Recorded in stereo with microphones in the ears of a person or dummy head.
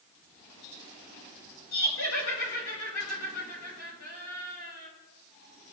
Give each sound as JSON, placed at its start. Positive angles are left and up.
{"t": 1.7, "sound": "laughter", "side_deg": 80, "distance_m": 5.5}